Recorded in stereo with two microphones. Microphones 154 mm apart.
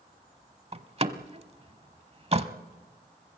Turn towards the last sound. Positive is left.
turn(degrees=-40)  # may be behind; listen again after turning